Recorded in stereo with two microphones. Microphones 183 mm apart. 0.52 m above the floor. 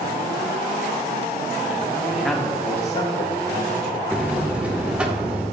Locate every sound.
2.1 s a man speaking: 15° right (ahead or behind), 1.2 m; by 4.0 s 65° left (ahead or behind), 2.5 m
4.1 s a buzzer: 5° right (ahead or behind), 1.1 m